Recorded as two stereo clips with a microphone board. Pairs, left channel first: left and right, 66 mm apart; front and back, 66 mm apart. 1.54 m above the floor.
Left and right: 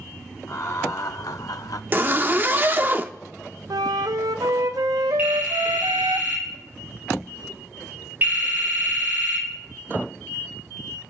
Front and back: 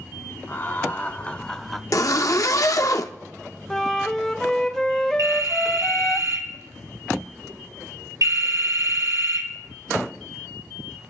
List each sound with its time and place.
0.5 s laughter: 55° left, 1.3 m; by 1.8 s 95° left, 0.6 m
1.9 s a zipper: 30° right, 0.7 m
3.7 s a flute: 80° right, 0.6 m
5.2 s a phone ringing: 145° right, 3.5 m